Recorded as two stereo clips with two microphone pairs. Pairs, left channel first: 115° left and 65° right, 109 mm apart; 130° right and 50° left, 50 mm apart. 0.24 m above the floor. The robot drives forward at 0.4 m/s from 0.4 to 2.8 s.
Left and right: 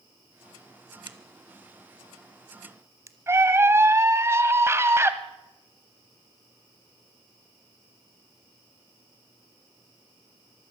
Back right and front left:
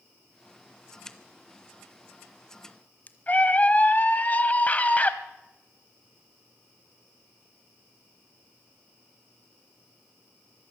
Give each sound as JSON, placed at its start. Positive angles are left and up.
{"t": 1.1, "sound": "a crack", "azimuth_deg": -55, "distance_m": 1.2}
{"t": 3.3, "sound": "a scream", "azimuth_deg": -105, "distance_m": 1.1}